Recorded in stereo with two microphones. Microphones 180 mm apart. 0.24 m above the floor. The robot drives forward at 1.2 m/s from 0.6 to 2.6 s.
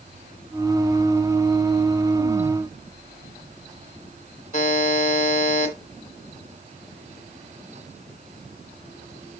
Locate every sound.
4.5 s a buzzer: 45° left (ahead or behind), 2 m